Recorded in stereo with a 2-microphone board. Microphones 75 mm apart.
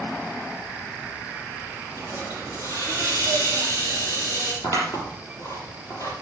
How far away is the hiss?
About 5.5 m.